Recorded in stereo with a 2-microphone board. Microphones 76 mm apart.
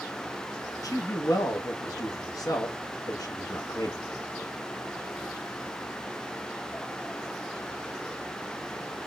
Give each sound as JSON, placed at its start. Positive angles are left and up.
{"t": 0.8, "sound": "a man speaking", "side_deg": 50, "distance_m": 0.7}